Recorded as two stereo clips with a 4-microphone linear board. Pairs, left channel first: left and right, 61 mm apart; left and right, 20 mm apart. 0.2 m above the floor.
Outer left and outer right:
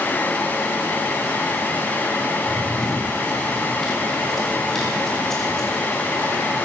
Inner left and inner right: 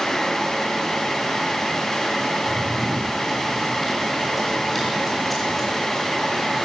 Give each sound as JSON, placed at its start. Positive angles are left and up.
{"t": 2.4, "sound": "running footsteps", "side_deg": 0, "distance_m": 9.0}